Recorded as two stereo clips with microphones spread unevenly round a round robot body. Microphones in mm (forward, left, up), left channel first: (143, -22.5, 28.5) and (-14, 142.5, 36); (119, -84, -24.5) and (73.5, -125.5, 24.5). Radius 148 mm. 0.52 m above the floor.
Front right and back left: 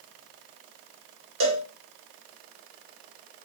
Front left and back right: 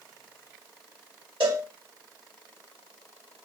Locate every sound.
1.4 s a cowbell: 160° left, 1.2 m